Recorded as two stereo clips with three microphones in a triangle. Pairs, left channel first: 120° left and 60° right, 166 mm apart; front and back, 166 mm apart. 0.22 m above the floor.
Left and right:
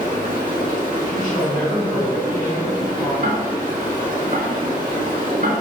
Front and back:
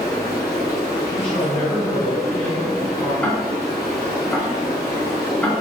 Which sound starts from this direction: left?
A woman speaking, at 1.1 s.